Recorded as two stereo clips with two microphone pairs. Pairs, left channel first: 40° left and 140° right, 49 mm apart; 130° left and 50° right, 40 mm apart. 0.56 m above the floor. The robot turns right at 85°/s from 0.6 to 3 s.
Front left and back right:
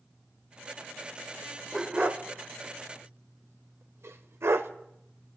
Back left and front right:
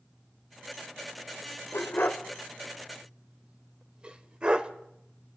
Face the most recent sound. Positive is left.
turn(degrees=-115)